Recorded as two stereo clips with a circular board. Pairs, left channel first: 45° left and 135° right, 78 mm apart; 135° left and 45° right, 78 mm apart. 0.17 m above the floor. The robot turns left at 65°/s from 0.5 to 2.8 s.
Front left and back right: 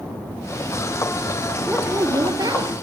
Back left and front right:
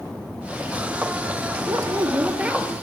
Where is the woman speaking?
65° right, 3.5 m; by 2.7 s 135° right, 3.5 m.